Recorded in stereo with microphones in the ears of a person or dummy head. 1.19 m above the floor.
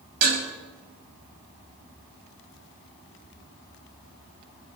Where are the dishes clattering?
50° right (ahead or behind), 5.5 m.